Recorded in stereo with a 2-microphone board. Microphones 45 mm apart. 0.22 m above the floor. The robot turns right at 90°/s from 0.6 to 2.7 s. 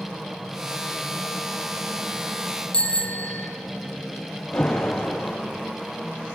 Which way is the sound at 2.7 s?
20° left (ahead or behind).